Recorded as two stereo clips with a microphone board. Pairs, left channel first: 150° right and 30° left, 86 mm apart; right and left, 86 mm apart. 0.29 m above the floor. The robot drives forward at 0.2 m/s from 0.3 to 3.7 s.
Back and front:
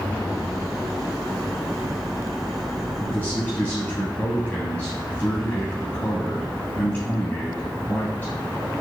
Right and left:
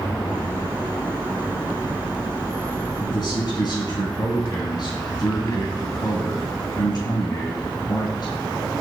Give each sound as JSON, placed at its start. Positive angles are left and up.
{"t": 3.0, "sound": "a man speaking", "azimuth_deg": -95, "distance_m": 1.9}